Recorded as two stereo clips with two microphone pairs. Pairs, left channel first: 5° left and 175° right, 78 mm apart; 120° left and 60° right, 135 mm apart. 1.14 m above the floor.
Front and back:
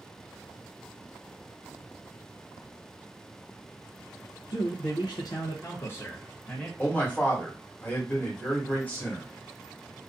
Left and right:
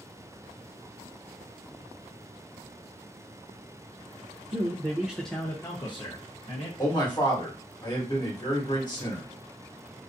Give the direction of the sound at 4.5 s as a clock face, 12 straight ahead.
12 o'clock.